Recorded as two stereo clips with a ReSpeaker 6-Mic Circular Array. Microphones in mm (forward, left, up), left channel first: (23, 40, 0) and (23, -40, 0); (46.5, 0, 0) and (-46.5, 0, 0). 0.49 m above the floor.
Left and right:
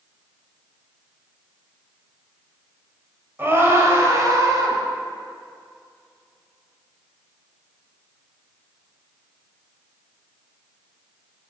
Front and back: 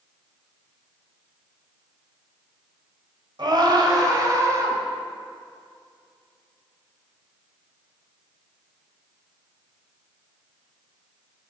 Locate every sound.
3.4 s a scream: 150° right, 2.5 m; by 4.8 s 125° right, 3 m